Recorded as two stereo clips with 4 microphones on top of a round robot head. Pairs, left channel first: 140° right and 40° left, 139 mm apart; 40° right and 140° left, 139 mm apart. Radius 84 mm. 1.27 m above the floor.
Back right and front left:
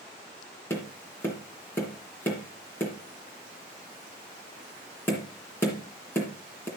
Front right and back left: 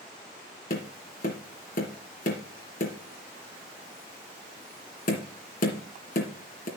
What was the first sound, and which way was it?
Tapping, 70° right.